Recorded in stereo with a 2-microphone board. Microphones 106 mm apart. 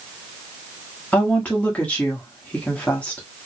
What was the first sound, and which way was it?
A woman speaking, 15° left (ahead or behind).